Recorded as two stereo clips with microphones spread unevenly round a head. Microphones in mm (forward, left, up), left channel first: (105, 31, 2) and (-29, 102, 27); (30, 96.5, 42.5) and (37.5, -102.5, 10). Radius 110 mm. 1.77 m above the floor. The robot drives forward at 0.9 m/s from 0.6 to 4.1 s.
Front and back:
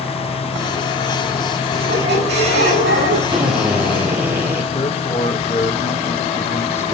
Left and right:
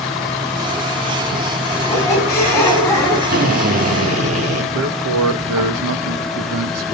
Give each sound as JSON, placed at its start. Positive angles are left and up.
{"t": 1.7, "sound": "a squeak", "azimuth_deg": 170, "distance_m": 7.5}
{"t": 3.3, "sound": "a drill", "azimuth_deg": -140, "distance_m": 3.5}
{"t": 4.7, "sound": "a man speaking", "azimuth_deg": -90, "distance_m": 2.0}